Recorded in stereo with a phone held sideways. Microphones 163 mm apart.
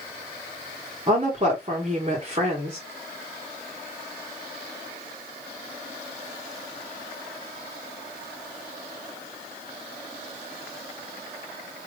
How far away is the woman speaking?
About 1.2 m.